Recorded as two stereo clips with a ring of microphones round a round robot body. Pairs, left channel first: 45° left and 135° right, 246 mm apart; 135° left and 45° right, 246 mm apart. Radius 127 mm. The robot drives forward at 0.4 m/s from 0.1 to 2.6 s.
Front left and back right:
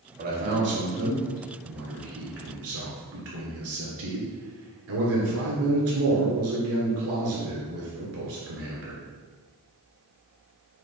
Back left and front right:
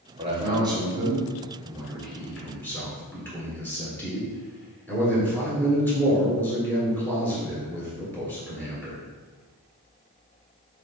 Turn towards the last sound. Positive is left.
turn(degrees=-145)